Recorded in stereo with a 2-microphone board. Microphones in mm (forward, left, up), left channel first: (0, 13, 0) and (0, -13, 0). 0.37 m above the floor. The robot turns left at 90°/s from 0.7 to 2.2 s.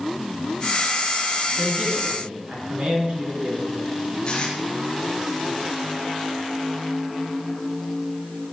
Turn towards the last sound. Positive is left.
turn(degrees=30)  # may be behind; listen again after turning